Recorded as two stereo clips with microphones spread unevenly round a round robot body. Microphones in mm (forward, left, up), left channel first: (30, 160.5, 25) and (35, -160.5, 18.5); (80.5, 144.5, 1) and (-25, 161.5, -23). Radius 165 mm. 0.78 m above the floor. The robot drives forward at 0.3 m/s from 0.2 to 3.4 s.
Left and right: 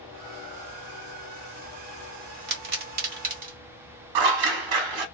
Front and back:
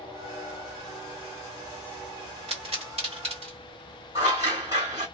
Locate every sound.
2.5 s a pop: 150° right, 1.6 m; by 3.6 s 155° right, 1.9 m
4.2 s scissors: 110° right, 0.6 m